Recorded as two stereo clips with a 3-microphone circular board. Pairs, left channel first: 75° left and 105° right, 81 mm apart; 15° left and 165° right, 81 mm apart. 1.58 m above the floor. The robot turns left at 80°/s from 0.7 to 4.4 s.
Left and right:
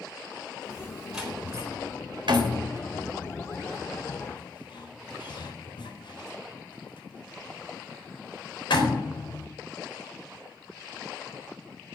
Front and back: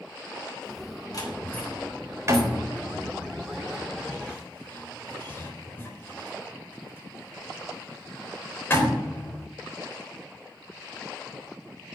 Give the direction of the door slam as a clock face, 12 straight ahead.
1 o'clock.